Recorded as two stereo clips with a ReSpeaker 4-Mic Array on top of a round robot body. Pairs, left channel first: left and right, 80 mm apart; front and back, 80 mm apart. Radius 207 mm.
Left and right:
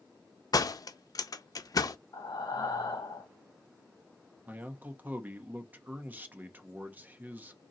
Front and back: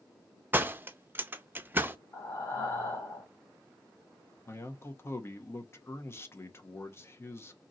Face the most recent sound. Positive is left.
turn(degrees=-35)